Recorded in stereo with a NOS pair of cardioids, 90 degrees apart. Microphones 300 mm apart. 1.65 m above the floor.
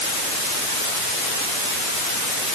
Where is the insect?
No insect in this recording.